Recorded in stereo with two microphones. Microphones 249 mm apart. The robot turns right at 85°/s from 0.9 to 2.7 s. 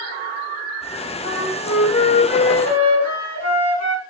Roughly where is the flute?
Ahead right.